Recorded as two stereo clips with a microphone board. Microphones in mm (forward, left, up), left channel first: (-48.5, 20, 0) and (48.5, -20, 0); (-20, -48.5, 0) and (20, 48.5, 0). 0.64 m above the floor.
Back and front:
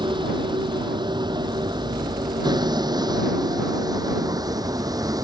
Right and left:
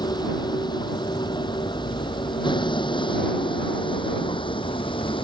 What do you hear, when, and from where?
0.0 s a vehicle: 65° right; by 5.2 s 75° right